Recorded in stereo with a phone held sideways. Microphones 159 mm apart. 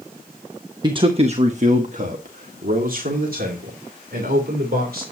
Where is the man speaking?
30° right (ahead or behind), 0.8 m; by 5.0 s 75° right (ahead or behind), 3.5 m.